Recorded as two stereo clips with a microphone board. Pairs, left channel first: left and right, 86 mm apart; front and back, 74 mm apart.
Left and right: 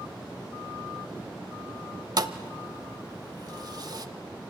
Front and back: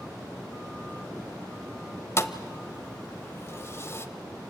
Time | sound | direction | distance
2.2 | a thud | 50° right | 0.8 m